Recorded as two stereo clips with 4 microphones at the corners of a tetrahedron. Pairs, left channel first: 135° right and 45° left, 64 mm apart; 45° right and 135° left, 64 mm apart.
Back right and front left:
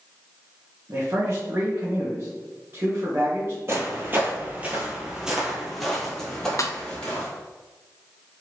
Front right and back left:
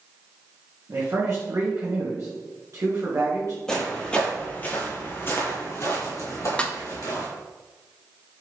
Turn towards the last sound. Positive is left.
turn(degrees=-115)